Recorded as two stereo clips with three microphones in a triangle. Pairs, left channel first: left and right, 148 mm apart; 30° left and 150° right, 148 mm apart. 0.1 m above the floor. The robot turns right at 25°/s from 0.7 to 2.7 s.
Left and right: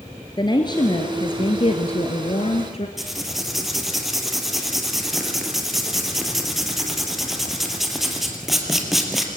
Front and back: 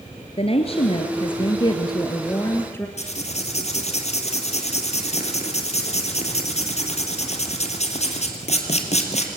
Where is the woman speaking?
45° left, 1.7 m; by 2.9 s 95° left, 1.7 m.